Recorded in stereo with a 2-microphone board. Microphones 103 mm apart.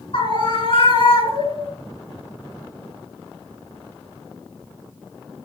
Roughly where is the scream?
Left.